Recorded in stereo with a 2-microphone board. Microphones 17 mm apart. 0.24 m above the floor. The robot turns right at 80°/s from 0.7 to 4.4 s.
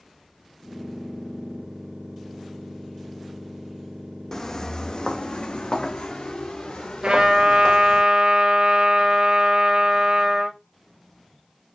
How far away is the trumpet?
About 1.9 m.